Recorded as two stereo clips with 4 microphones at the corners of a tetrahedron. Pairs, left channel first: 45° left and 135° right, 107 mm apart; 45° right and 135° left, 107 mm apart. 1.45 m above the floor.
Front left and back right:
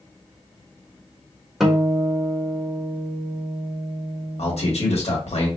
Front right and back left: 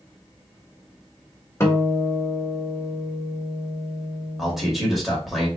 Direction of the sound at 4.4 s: 50° left.